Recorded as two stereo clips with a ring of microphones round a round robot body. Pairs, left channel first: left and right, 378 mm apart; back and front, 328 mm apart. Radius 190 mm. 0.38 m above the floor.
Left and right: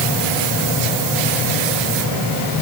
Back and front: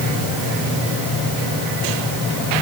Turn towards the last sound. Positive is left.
No sound to turn to.